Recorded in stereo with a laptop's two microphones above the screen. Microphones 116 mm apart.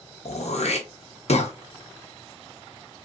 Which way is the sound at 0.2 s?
65° left (ahead or behind).